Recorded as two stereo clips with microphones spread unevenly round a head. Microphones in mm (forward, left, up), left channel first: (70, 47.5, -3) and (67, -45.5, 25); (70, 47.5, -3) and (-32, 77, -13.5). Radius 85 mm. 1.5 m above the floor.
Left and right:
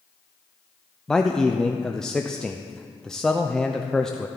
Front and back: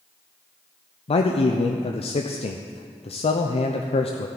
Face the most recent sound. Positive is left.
turn(degrees=10)